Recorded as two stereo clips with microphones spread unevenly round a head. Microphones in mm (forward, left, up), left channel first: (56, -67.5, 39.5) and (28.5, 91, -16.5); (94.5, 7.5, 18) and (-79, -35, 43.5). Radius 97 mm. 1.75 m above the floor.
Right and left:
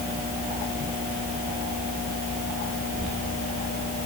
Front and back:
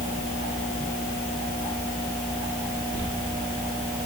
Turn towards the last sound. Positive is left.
No sound to turn to.